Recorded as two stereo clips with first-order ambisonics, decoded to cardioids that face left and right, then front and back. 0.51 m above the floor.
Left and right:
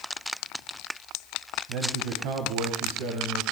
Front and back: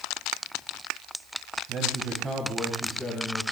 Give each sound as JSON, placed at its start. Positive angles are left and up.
{"t": 1.7, "sound": "a man speaking", "azimuth_deg": -125, "distance_m": 2.5}